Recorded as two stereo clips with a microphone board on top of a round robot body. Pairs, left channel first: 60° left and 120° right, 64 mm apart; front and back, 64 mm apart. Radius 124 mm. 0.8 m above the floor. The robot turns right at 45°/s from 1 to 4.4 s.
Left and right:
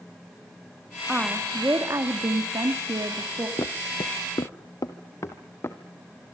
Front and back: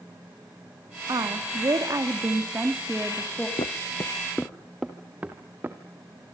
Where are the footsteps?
10° left, 1.4 m; by 5.8 s 115° left, 2 m.